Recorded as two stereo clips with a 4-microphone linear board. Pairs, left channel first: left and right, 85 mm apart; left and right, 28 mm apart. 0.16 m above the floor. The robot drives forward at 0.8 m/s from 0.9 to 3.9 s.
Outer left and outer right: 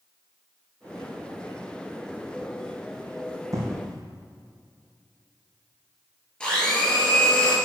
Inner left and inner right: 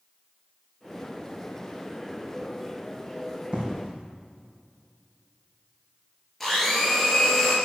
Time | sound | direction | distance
3.5 | an explosion | 40° right (ahead or behind) | 2.5 m
6.4 | a blender | 10° left (ahead or behind) | 3.5 m